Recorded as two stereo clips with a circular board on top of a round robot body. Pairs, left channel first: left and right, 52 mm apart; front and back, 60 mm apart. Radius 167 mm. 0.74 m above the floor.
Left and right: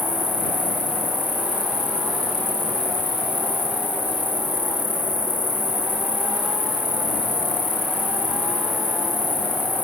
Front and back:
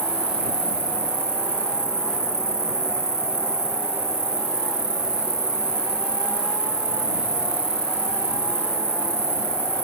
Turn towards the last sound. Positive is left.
turn(degrees=150)